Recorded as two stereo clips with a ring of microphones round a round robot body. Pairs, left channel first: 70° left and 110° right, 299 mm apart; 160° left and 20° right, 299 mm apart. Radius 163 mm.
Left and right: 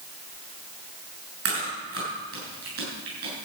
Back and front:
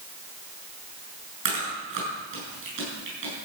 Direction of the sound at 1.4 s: 70° right.